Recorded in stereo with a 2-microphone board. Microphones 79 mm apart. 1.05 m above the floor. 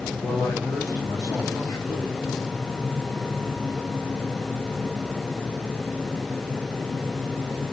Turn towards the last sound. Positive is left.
turn(degrees=55)  # may be behind; listen again after turning